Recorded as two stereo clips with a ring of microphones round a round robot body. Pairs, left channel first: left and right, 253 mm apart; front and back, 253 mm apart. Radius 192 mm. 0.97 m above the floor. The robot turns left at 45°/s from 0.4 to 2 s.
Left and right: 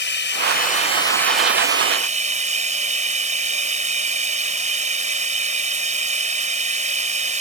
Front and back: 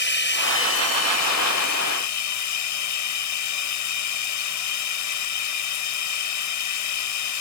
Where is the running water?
45° left; by 7.4 s 25° right.